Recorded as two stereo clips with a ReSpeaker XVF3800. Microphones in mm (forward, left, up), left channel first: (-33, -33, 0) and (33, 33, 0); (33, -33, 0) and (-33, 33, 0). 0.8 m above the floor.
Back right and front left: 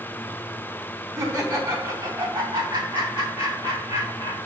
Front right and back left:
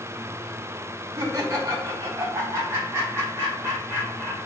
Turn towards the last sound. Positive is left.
turn(degrees=70)